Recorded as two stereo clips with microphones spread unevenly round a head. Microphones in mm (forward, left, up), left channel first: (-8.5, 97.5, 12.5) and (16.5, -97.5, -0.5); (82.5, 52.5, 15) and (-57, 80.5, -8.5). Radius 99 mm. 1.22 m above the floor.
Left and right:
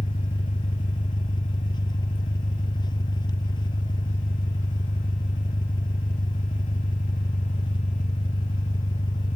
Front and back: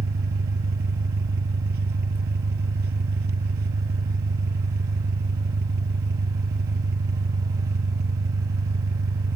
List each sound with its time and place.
0.0 s an engine running: 165° left